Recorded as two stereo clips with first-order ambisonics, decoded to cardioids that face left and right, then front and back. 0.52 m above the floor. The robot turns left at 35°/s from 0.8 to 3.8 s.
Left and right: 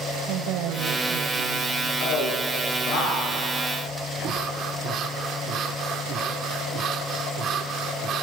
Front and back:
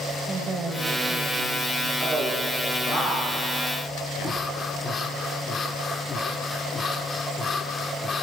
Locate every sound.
0.2 s a woman speaking: 105° right, 2.5 m; by 1.9 s 140° right, 2.5 m
2.0 s a man speaking: 90° left, 6.5 m; by 4.3 s 25° left, 6.5 m
4.2 s breathing: 60° right, 1.4 m